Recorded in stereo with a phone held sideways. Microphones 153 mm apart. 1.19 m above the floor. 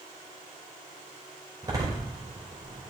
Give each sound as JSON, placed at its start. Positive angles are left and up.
{"t": 1.6, "sound": "a door slam", "side_deg": -25, "distance_m": 3.0}